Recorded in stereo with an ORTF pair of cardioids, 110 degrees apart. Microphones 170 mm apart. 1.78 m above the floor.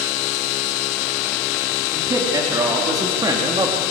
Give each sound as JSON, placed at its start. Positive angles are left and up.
{"t": 1.9, "sound": "a man speaking", "azimuth_deg": -20, "distance_m": 4.5}